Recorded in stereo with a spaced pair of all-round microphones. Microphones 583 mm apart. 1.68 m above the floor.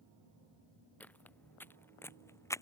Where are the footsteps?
5° left (ahead or behind).